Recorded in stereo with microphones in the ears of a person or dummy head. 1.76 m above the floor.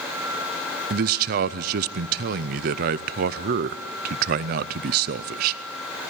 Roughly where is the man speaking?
Right.